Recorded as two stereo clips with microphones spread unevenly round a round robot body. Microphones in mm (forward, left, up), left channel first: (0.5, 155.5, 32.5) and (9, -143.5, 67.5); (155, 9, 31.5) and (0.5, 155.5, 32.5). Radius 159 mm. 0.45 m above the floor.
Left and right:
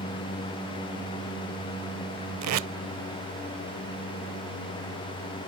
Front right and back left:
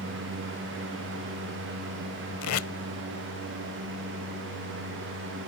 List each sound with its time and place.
2.4 s tape being pulled: 50° right